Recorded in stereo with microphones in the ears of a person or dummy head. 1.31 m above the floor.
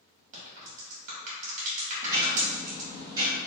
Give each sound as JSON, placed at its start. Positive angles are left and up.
{"t": 0.3, "sound": "a crack", "side_deg": -35, "distance_m": 1.2}
{"t": 2.0, "sound": "ticking", "side_deg": -20, "distance_m": 1.5}